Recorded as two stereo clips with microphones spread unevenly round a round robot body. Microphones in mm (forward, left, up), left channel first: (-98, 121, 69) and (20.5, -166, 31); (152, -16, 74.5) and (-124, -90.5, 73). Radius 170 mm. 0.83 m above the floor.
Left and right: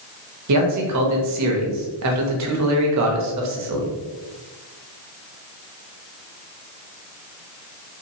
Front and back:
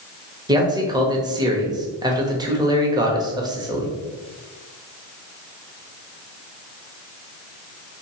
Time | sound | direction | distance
0.5 | a man speaking | 90° right | 1.0 m